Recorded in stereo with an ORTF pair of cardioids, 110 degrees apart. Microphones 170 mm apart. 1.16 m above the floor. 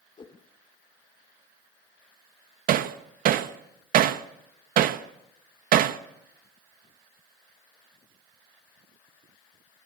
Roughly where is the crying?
I don't hear crying.